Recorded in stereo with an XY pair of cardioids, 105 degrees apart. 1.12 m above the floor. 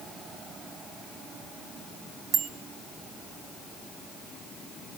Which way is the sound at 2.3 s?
55° right.